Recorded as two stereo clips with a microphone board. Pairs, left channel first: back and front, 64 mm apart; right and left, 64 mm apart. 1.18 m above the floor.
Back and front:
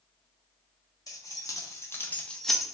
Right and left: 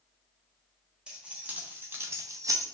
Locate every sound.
1.1 s keys jangling: 160° left, 1.2 m; by 2.8 s 75° left, 0.7 m